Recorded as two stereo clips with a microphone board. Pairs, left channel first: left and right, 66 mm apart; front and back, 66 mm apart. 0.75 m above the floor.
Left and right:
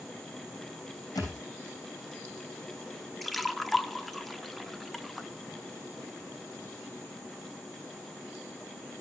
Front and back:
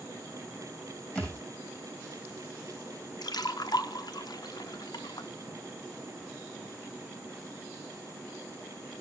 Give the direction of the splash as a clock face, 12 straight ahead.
12 o'clock.